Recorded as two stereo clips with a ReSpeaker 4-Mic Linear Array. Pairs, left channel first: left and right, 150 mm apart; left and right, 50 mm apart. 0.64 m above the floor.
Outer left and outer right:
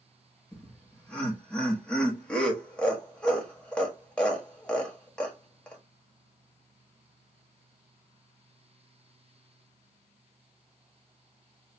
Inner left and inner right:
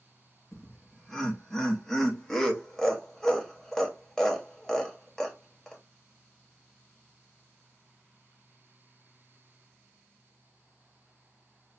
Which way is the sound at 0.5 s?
5° left (ahead or behind).